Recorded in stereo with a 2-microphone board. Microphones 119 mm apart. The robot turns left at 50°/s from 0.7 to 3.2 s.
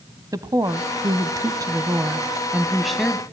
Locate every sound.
0.3 s a woman speaking: 70° right, 1.2 m; by 3.2 s 165° left, 1.2 m